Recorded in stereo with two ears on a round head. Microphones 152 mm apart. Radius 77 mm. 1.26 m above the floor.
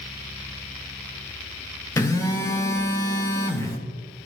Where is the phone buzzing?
20° left (ahead or behind), 0.8 m.